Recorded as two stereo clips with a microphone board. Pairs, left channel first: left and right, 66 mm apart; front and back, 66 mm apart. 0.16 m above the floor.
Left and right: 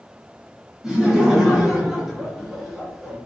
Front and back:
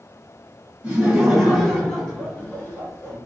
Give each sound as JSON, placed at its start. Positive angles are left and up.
{"t": 0.8, "sound": "laughter", "azimuth_deg": -155, "distance_m": 1.2}